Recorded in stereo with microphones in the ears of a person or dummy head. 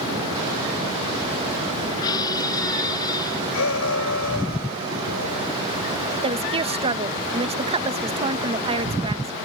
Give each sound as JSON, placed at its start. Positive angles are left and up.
{"t": 2.0, "sound": "a squeak", "side_deg": 20}
{"t": 3.5, "sound": "a shout", "side_deg": 70}
{"t": 6.2, "sound": "a woman speaking", "side_deg": -30}